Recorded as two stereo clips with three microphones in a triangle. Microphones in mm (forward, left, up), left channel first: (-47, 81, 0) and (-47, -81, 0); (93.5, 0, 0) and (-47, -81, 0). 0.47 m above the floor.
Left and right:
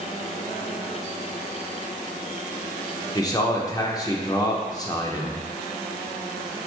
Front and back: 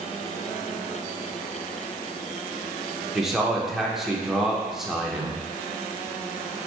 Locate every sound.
3.1 s a man speaking: 125° left, 0.7 m